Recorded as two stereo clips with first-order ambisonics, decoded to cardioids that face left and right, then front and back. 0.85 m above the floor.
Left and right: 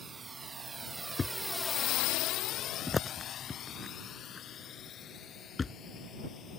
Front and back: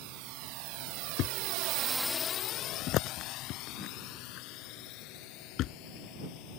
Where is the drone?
160° right; by 6.6 s 30° left.